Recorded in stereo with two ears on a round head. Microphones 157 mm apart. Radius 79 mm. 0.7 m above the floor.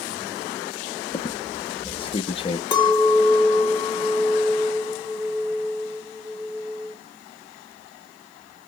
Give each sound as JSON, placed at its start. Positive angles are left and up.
{"t": 1.1, "sound": "a squeak", "side_deg": 30, "distance_m": 0.5}
{"t": 2.7, "sound": "a clink", "side_deg": 25, "distance_m": 1.0}